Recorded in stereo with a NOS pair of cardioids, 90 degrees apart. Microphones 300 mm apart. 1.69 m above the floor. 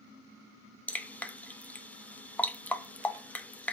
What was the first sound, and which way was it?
Dripping, 5° left.